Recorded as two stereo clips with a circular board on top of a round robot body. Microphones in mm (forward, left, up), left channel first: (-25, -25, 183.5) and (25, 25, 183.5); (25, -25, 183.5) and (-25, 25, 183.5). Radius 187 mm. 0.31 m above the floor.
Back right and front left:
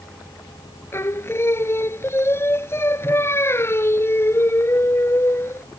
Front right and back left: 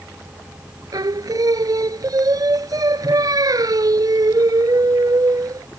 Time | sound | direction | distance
0.9 | singing | 170° left | ?